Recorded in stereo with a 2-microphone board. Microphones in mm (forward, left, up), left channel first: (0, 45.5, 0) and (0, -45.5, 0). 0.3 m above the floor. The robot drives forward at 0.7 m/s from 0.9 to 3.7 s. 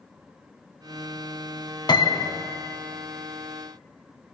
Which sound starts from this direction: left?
A piano, at 1.9 s.